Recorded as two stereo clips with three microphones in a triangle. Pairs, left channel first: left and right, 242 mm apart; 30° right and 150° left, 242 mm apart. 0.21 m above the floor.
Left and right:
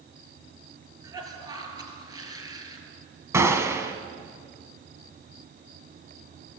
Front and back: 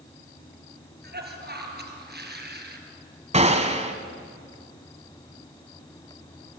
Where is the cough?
165° right, 4.5 m.